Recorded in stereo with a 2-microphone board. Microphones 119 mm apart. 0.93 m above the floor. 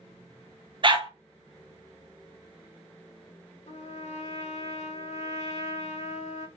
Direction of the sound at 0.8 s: 45° right (ahead or behind).